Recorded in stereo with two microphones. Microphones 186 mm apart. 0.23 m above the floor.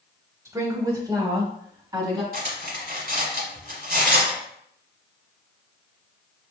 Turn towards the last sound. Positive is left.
turn(degrees=-55)  # may be behind; listen again after turning